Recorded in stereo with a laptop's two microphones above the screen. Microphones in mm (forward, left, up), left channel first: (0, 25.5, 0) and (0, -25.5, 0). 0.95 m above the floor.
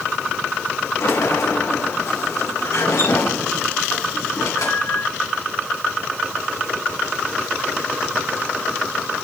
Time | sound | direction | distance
1.0 | a sliding door | 85° left | 3 m